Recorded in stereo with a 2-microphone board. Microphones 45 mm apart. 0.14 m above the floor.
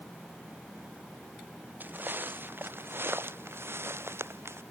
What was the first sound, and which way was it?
Footsteps, 50° right (ahead or behind).